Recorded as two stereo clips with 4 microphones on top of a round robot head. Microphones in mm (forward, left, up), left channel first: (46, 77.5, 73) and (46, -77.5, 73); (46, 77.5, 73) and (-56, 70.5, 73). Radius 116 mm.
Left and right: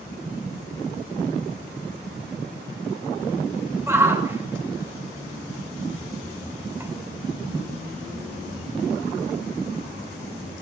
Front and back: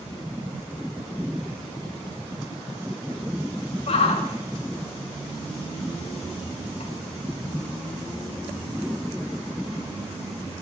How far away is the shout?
About 4.5 m.